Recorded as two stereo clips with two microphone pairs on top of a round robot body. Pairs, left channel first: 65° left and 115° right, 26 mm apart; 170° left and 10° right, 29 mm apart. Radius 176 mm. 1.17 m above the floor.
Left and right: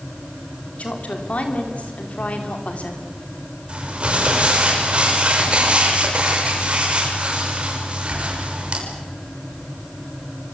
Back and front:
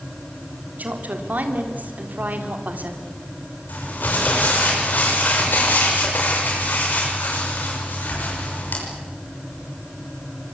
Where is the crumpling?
165° right, 6 m.